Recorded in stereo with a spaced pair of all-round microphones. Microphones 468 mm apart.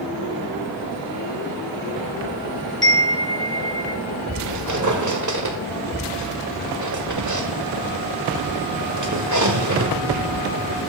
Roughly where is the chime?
Left.